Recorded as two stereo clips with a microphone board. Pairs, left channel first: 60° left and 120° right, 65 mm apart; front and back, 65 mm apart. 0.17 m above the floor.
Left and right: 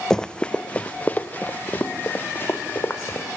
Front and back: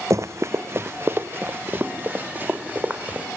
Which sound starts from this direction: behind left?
Running footsteps, at 0.1 s.